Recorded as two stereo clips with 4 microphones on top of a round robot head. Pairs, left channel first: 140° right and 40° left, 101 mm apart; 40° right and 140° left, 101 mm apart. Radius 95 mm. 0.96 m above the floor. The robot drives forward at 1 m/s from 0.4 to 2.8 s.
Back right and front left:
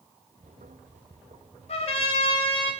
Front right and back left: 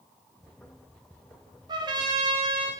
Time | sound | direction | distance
1.7 | a trumpet | 170° right | 0.9 m